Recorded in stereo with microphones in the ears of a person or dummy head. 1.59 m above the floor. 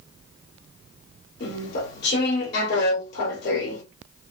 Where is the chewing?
65° left (ahead or behind), 2.5 m.